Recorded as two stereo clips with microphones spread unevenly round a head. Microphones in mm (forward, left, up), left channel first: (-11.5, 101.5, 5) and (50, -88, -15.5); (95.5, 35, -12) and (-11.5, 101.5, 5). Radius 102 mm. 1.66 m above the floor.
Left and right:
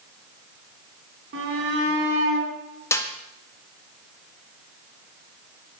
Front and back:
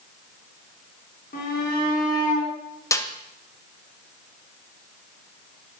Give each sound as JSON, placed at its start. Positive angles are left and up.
{"t": 1.3, "sound": "a shout", "azimuth_deg": -45, "distance_m": 4.0}
{"t": 2.9, "sound": "a snare drum", "azimuth_deg": 35, "distance_m": 1.6}